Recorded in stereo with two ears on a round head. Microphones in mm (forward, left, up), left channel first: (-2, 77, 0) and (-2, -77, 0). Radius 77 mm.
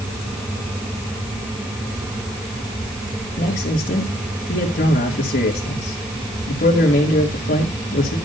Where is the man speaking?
50° left (ahead or behind), 2.5 m.